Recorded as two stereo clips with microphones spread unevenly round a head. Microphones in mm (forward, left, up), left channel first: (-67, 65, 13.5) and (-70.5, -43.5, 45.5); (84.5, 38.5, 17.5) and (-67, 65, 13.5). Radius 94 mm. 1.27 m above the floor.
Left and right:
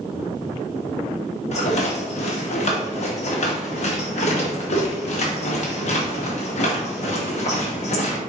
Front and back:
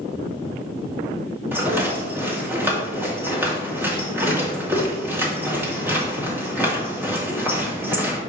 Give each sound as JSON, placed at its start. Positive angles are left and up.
{"t": 1.5, "sound": "a rattle", "azimuth_deg": 95, "distance_m": 2.5}